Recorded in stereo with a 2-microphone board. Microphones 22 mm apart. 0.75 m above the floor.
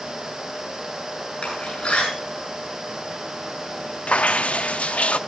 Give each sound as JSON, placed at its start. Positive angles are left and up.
{"t": 1.4, "sound": "a door slam", "side_deg": 50, "distance_m": 9.5}
{"t": 4.1, "sound": "dripping", "side_deg": 70, "distance_m": 0.5}